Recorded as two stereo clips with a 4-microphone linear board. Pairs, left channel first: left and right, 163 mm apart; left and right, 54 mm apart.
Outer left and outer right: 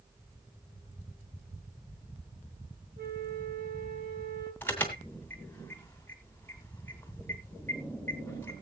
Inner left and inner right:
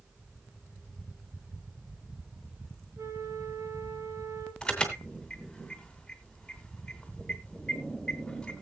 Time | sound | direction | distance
3.0 | a flute | 70° right (ahead or behind) | 2.5 m
4.6 | an alarm | 10° left (ahead or behind) | 2.5 m